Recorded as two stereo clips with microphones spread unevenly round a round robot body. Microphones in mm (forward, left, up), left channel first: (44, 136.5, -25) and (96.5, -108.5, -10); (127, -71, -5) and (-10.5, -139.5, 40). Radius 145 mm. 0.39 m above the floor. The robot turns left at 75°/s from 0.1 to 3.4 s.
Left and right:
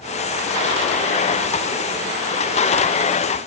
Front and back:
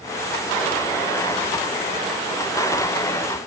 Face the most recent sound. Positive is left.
No sound to turn to.